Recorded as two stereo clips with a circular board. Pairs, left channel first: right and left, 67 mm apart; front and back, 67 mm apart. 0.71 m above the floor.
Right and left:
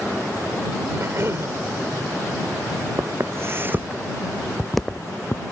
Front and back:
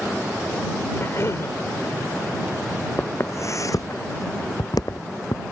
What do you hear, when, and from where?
0.9 s a cough: 45° left
3.0 s footsteps: 50° left; by 5.4 s 25° right